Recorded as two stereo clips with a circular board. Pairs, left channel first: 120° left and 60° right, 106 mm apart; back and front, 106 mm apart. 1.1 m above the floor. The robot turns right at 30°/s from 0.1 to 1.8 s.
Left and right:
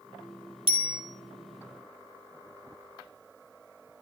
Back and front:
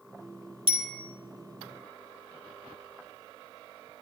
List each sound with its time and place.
0.7 s a bicycle bell: 30° right, 2 m; by 1.0 s 20° right, 2 m